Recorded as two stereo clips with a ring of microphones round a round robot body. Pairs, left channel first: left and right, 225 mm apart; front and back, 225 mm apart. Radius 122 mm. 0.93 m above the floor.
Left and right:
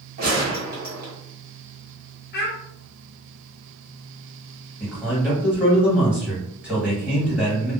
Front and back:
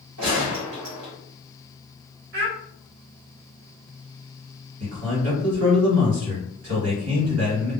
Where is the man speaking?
175° right, 1.6 m.